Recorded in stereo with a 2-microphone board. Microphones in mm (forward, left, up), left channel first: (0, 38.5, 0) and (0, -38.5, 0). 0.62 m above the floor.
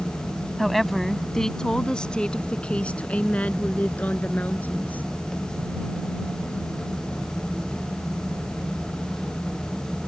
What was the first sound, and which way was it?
A woman speaking, centre (ahead or behind).